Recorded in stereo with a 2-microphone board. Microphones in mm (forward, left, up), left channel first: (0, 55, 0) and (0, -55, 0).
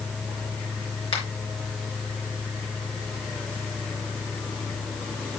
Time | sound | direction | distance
1.1 | a finger snap | 55° left (ahead or behind) | 3.5 m